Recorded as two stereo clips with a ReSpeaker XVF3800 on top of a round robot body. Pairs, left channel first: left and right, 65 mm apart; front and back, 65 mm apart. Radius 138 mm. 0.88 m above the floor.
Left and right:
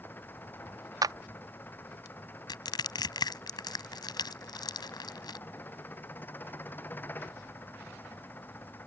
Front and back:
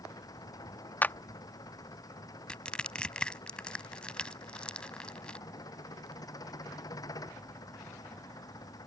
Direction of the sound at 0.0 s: 30° left.